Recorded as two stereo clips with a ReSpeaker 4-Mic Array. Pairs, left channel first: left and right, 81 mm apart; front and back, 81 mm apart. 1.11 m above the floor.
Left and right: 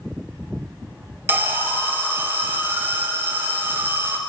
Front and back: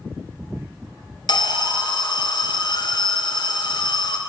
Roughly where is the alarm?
Ahead right.